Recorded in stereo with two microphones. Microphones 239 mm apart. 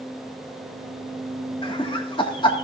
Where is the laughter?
20° left (ahead or behind), 1.6 m.